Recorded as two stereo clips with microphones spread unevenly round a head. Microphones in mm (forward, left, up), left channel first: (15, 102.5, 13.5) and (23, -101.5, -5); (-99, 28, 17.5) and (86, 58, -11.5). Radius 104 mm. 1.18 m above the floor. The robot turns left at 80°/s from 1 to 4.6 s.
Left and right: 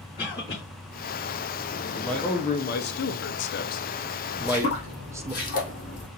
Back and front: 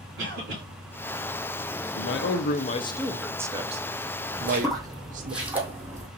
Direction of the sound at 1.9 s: 165° right.